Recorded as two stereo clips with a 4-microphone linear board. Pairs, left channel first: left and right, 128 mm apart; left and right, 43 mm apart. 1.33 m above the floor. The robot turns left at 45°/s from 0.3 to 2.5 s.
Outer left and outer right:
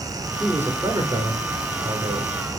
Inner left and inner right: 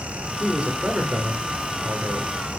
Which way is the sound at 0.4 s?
5° right.